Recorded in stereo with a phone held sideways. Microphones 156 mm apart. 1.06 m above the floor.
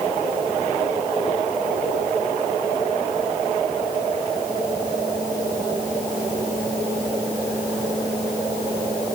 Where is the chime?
I don't hear a chime.